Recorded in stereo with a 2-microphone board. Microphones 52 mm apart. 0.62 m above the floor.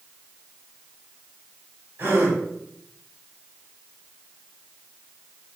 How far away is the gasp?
About 1.6 m.